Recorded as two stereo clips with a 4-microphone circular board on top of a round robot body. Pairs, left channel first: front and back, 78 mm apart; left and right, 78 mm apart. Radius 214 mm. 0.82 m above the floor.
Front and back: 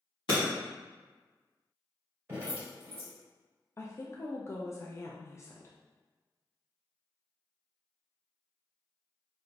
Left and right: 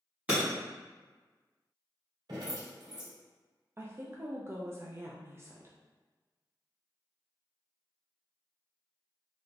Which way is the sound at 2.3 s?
120° right.